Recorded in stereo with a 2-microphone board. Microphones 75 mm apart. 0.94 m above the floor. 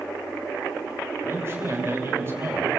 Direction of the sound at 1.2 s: 35° right (ahead or behind).